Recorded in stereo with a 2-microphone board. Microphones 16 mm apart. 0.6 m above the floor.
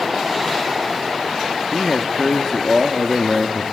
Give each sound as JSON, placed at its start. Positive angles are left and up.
{"t": 1.7, "sound": "a man speaking", "side_deg": 10, "distance_m": 1.0}